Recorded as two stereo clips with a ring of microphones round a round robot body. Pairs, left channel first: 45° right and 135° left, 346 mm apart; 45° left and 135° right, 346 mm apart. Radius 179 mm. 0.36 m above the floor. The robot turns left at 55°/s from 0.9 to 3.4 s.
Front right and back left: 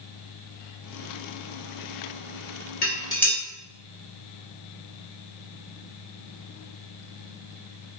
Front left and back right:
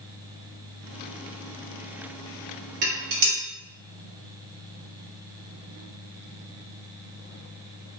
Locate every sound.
2.8 s dishes clattering: 105° right, 1.1 m; by 3.4 s 135° right, 1.1 m